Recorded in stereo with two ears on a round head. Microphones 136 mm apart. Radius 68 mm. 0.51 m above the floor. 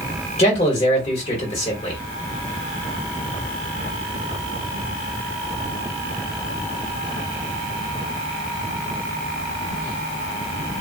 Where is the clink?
I don't hear a clink.